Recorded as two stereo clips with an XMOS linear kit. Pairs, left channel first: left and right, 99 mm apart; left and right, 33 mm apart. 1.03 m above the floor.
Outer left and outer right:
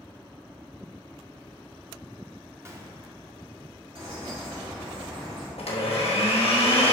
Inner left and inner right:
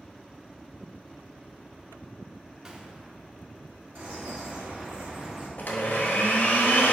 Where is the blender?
80° left, 1.1 m.